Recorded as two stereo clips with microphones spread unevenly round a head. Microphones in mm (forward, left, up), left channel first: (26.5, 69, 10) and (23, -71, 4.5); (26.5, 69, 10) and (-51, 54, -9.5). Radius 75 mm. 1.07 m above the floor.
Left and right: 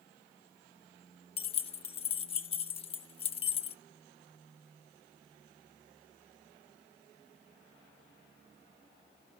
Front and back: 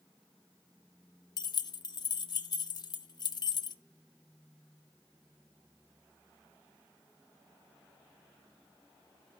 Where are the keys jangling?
40° left, 0.6 m.